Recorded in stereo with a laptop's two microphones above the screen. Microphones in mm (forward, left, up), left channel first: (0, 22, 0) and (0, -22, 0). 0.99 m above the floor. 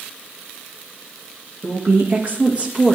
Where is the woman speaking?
65° right (ahead or behind), 1.9 m; by 3.0 s 15° right (ahead or behind), 1.5 m.